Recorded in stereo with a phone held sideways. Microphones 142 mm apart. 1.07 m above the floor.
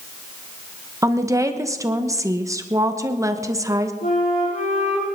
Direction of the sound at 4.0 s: 80° left.